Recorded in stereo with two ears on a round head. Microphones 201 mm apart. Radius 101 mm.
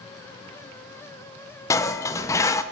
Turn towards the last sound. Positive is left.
turn(degrees=15)  # may be behind; listen again after turning